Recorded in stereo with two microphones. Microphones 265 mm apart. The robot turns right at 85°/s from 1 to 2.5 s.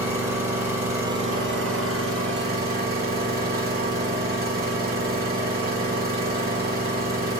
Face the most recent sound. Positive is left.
turn(degrees=-40)